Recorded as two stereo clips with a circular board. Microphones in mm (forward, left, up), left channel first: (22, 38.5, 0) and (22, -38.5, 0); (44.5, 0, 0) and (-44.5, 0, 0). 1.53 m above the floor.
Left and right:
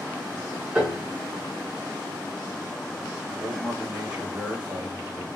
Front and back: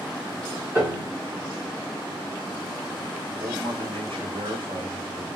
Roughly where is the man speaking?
Behind.